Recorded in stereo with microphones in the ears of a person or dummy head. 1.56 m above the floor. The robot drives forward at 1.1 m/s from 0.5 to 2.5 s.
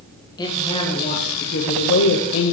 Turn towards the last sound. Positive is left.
turn(degrees=65)  # may be behind; listen again after turning